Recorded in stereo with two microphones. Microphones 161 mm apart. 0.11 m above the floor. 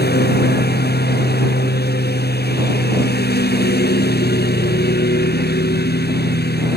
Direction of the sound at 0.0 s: 90° left.